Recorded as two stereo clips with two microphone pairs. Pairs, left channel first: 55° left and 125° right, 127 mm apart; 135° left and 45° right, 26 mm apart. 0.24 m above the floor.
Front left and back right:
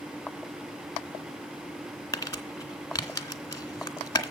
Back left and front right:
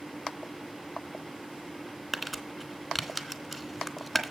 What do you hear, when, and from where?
2.1 s crumpling: 40° left, 1.3 m